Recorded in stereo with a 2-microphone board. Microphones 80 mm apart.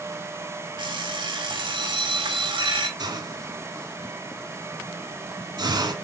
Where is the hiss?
60° right (ahead or behind), 1.8 m.